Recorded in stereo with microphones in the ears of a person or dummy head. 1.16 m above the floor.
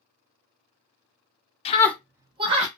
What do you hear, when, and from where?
1.6 s a scream: 25° left (ahead or behind), 0.7 m; by 2.7 s 35° right (ahead or behind), 1.0 m